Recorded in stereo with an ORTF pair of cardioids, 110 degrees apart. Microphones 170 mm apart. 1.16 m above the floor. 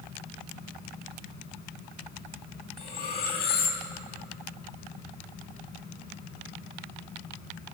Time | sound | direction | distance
0.0 | a fan | 65° left | 5.5 m
2.8 | cutlery clinking | 60° left | 7 m